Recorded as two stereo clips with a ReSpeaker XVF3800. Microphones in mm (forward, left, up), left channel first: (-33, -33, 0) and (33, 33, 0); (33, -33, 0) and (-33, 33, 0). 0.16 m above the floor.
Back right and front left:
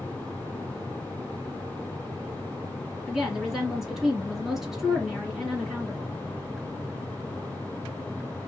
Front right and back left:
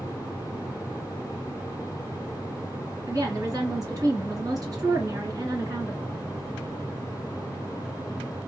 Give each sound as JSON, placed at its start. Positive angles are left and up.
{"t": 3.1, "sound": "a woman speaking", "azimuth_deg": 130, "distance_m": 1.6}